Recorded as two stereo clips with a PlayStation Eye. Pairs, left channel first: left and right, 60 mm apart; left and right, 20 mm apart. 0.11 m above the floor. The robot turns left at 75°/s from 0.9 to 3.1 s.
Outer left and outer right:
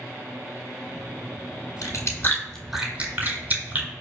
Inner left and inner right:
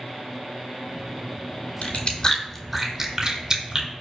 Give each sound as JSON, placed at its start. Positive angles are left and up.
{"t": 1.8, "sound": "chewing", "side_deg": 65, "distance_m": 0.7}